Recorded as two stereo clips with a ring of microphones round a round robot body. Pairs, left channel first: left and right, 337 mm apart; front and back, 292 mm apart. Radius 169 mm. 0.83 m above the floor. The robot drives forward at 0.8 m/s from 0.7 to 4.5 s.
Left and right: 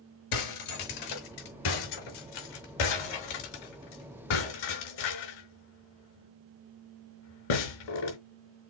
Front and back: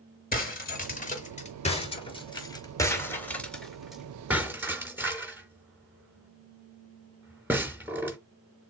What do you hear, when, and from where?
0.3 s breaking glass: 60° left, 5 m; by 8.2 s 95° left, 4.5 m